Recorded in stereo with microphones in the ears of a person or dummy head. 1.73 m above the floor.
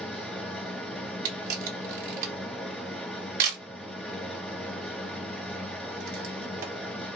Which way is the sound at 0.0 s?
5° right (ahead or behind).